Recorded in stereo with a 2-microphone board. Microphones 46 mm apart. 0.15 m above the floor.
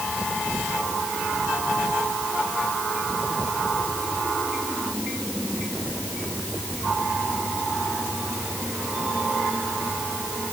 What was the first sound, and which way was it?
Only background noise.